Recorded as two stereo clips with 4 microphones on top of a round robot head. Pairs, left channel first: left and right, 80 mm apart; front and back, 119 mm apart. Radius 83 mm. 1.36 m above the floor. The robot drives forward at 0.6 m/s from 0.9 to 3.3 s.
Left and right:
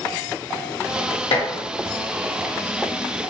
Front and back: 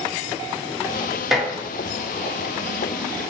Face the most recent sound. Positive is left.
turn(degrees=125)